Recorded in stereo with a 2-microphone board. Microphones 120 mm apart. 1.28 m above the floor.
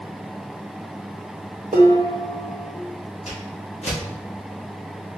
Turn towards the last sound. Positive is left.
turn(degrees=60)  # may be behind; listen again after turning